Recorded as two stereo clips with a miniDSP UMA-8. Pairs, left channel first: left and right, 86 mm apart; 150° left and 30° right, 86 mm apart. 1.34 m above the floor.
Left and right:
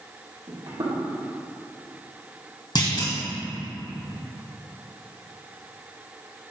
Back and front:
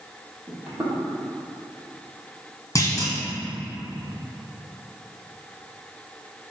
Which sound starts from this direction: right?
Footsteps, at 0.5 s.